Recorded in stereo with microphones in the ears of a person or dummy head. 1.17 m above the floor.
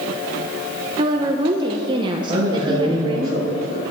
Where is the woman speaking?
30° right (ahead or behind), 0.7 m.